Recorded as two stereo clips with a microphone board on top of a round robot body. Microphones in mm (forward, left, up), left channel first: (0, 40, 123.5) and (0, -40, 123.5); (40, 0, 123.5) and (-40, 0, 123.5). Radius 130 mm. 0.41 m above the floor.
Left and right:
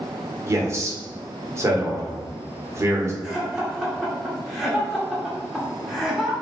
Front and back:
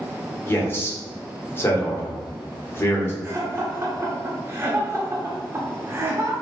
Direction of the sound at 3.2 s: 170° right.